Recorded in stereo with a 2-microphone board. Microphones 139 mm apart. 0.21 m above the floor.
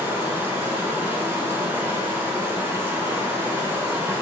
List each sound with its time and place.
0.0 s running water: 15° right (ahead or behind), 0.9 m